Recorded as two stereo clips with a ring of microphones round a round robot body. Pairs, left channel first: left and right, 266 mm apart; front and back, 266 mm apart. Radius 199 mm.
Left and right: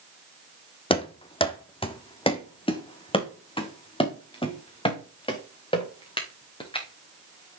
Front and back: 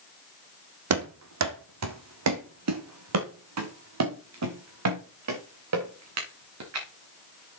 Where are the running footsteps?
160° left, 1.7 m.